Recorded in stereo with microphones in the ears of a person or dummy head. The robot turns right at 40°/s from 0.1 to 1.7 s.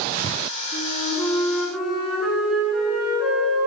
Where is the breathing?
No breathing in this recording.